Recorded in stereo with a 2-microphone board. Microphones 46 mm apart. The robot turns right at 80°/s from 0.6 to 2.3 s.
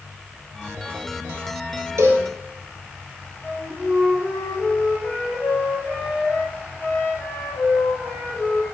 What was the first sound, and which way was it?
A cowbell, 70° right (ahead or behind).